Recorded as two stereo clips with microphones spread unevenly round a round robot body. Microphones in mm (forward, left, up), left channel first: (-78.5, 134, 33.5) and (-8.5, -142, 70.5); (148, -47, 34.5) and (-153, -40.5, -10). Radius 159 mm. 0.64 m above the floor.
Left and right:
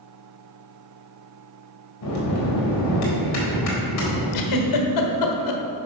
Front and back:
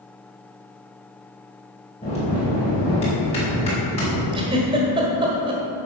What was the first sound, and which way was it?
A bell, 75° left.